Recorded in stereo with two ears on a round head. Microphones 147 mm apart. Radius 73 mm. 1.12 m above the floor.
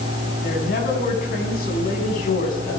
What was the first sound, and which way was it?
A woman speaking, 60° left (ahead or behind).